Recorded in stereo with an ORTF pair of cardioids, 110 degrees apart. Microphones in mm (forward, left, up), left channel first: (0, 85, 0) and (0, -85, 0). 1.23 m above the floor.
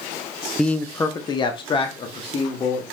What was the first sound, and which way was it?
A man speaking, 5° left.